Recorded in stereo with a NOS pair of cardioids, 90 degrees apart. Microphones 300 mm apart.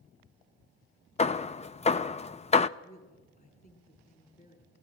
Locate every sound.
1.2 s hammering: 20° left, 0.5 m
2.8 s a woman speaking: 30° left, 9 m